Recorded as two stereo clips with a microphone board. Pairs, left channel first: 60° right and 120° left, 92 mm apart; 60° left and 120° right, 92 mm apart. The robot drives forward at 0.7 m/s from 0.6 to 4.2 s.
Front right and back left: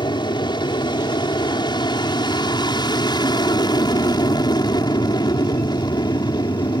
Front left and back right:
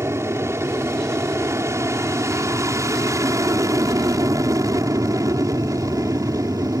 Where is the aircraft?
65° right; by 6.8 s 80° right.